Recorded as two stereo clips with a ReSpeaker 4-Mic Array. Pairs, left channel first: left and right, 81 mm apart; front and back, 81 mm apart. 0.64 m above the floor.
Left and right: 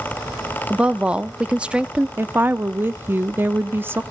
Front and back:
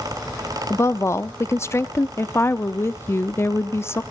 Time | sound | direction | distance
0.7 | a woman speaking | 25° right | 0.6 m
2.2 | a woman speaking | 40° right | 0.7 m